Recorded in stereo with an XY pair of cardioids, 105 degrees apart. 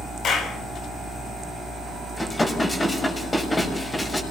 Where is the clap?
60° left, 6.5 m.